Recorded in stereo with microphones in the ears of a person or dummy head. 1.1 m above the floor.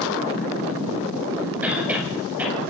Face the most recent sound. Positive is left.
turn(degrees=-10)  # may be behind; listen again after turning